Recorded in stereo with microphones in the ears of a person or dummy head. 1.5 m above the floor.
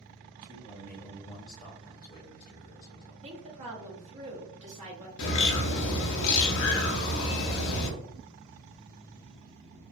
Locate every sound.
0.4 s a man speaking: 15° right (ahead or behind), 1.6 m; by 3.1 s 60° left (ahead or behind), 0.9 m
3.2 s a woman speaking: 35° right (ahead or behind), 1.1 m
5.2 s a bird: 70° left (ahead or behind), 0.7 m